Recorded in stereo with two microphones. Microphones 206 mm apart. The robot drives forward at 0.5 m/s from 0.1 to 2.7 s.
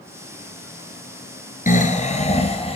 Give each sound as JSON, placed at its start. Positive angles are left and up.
{"t": 1.7, "sound": "snoring", "side_deg": 40, "distance_m": 1.3}